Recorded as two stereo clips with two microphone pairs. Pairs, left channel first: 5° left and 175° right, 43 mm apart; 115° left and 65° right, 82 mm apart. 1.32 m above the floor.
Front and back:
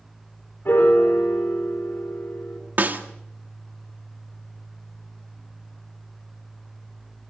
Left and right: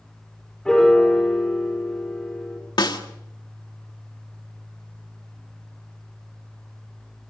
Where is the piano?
35° left, 3 m.